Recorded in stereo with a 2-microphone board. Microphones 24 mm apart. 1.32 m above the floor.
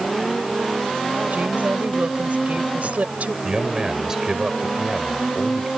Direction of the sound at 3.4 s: 25° right (ahead or behind).